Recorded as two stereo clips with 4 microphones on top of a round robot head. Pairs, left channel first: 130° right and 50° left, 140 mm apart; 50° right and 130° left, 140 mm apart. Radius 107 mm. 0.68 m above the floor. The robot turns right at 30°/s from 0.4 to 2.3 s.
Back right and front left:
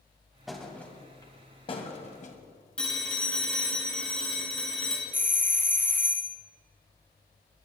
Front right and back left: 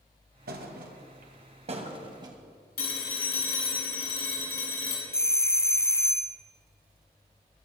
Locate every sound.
0.5 s a thud: 140° left, 1.7 m; by 2.4 s 165° right, 1.7 m
2.8 s a phone ringing: 45° right, 4 m
5.1 s a doorbell: 80° right, 0.9 m